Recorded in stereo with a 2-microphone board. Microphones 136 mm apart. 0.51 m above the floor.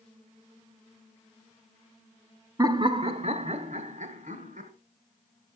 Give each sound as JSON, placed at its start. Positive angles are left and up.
{"t": 2.6, "sound": "laughter", "side_deg": -25, "distance_m": 0.7}